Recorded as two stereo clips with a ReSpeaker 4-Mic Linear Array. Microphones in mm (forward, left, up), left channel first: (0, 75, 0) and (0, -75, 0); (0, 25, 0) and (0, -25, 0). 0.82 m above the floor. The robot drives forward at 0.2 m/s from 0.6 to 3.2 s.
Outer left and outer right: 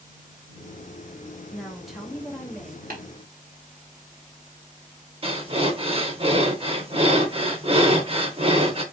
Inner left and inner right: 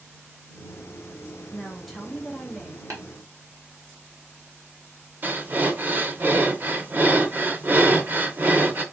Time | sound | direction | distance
1.5 | a woman speaking | centre (ahead or behind) | 1.0 m
2.9 | tapping | 80° right | 1.3 m
5.2 | breathing | 40° right (ahead or behind) | 0.6 m